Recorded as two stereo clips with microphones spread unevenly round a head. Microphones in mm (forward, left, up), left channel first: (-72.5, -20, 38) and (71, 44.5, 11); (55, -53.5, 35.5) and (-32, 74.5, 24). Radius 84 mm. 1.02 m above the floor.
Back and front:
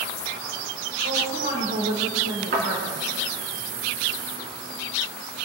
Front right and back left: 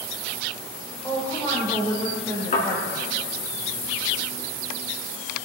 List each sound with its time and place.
1.0 s a woman speaking: 15° left, 4 m
2.5 s a thud: 20° right, 4.5 m